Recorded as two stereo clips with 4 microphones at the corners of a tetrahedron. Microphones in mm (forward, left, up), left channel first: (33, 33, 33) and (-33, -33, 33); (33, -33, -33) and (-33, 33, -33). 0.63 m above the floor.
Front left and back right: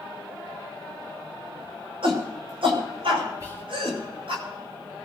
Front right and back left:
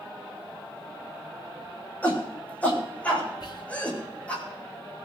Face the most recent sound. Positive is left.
turn(degrees=-80)